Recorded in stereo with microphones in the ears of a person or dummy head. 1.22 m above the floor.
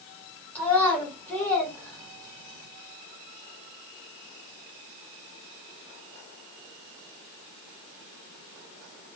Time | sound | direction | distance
0.6 | a child speaking | 5° left (ahead or behind) | 1.5 m